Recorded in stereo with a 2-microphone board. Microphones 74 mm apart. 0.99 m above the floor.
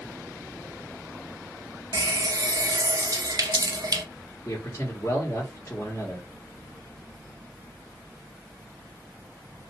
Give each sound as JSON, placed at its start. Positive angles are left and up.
{"t": 1.9, "sound": "a running tap", "side_deg": -55, "distance_m": 0.5}
{"t": 4.5, "sound": "a man speaking", "side_deg": 45, "distance_m": 1.4}